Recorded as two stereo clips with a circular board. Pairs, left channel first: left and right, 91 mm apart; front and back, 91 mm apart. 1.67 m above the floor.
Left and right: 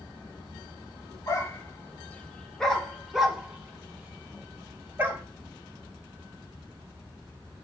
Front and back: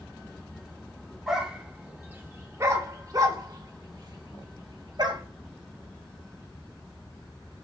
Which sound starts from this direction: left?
A dog barking, at 1.3 s.